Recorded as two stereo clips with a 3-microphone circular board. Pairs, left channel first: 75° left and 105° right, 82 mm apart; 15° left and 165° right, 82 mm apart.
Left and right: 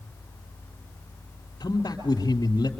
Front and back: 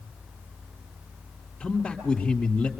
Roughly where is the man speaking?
Left.